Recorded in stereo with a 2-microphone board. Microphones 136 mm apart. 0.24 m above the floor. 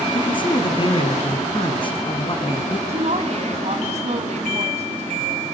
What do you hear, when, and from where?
0.1 s a man speaking: 40° left (ahead or behind), 2.5 m
2.9 s a woman speaking: 55° right (ahead or behind), 2.5 m